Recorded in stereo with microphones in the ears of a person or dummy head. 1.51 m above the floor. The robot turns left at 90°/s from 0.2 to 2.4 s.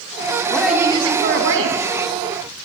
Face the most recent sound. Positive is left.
turn(degrees=-150)